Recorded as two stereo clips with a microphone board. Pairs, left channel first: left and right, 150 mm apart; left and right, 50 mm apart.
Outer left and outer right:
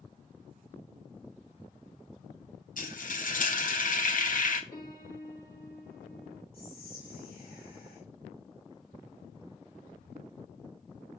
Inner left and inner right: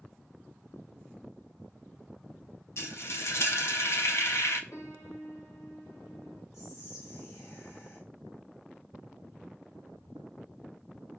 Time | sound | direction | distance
2.8 | frying | 60° left (ahead or behind) | 0.9 m
4.7 | a piano | 80° left | 2 m
6.5 | whispering | 85° left | 1.2 m